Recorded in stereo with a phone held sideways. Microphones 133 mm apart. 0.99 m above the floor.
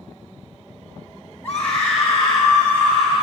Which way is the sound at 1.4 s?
15° left (ahead or behind).